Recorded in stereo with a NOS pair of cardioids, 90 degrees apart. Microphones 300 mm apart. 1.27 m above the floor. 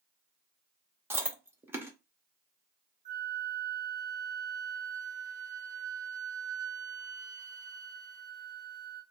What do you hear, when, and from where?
1.1 s chewing: 10° right, 0.9 m
3.0 s a flute: 25° right, 1.3 m